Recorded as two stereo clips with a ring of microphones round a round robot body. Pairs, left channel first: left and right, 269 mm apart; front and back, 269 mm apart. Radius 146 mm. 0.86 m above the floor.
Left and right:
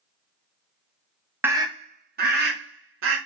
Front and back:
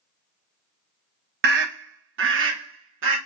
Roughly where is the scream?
Behind.